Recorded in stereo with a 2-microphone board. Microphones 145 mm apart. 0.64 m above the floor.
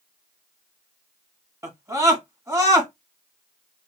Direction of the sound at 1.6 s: 20° right (ahead or behind).